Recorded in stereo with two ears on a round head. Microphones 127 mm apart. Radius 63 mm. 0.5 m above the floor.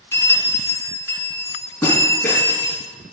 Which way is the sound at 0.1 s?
20° left (ahead or behind).